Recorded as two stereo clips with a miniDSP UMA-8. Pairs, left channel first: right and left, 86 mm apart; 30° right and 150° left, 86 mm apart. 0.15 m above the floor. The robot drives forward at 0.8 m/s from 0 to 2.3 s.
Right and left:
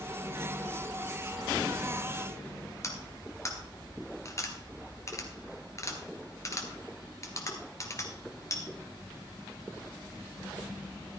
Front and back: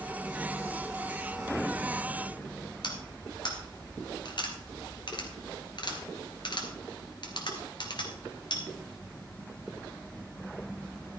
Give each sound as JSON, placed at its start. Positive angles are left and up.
{"t": 2.8, "sound": "cutlery clinking", "azimuth_deg": -45, "distance_m": 1.7}